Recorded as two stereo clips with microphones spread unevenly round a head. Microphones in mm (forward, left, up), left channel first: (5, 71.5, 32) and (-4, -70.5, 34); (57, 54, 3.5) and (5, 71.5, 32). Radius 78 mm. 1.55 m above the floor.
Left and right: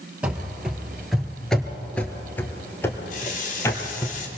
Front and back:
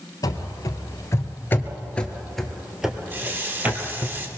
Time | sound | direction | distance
0.2 | running footsteps | 15° right | 1.8 m
3.1 | a running tap | 120° left | 3 m